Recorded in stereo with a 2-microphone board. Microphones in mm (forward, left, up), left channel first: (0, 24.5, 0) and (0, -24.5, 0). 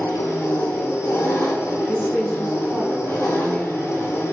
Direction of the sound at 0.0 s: 80° left.